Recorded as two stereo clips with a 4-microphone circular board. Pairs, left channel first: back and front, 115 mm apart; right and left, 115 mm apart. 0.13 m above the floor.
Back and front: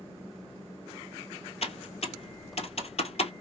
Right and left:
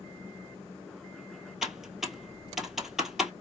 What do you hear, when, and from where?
1.6 s typing on a keyboard: 175° left, 1.3 m